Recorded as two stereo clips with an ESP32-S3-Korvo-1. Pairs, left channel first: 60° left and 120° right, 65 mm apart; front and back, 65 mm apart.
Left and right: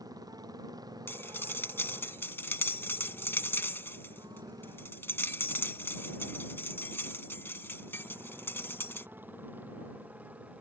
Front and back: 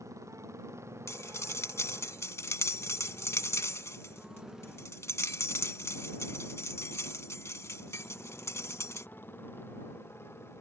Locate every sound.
0.0 s a motorcycle: 140° right; by 10.6 s 50° right
1.1 s cutlery clinking: 20° left